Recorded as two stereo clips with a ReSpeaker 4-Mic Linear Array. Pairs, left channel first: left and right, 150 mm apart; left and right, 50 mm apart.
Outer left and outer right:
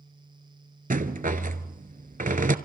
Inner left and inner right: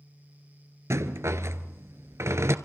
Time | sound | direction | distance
0.9 | a rattle | 75° right (ahead or behind) | 0.9 m